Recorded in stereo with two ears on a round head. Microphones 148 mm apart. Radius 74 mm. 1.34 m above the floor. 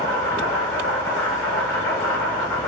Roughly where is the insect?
Centre.